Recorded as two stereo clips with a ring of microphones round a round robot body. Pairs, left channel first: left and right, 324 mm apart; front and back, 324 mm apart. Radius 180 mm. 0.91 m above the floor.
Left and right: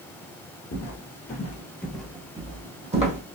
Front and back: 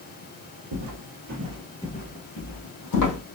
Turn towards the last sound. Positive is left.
turn(degrees=-20)